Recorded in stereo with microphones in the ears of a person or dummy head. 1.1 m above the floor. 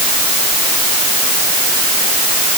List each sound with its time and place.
Only background noise.